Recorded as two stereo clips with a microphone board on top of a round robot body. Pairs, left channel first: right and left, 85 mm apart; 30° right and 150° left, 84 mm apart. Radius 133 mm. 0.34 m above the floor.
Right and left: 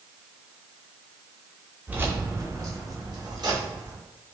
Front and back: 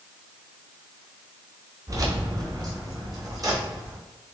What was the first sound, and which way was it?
Keys jangling, 150° left.